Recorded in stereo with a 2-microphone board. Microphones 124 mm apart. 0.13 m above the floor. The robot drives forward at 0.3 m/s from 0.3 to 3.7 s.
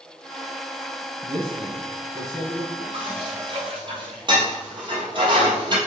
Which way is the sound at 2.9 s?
45° right (ahead or behind).